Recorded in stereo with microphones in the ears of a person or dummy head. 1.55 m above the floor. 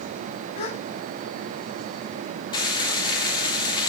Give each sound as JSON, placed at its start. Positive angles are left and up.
{"t": 0.6, "sound": "a gasp", "side_deg": 35, "distance_m": 1.7}
{"t": 2.5, "sound": "frying", "side_deg": 25, "distance_m": 5.0}